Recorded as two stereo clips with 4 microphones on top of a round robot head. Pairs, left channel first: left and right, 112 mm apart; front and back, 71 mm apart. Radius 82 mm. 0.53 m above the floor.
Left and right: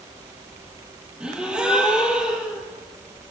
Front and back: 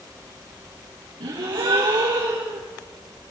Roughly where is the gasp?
Behind.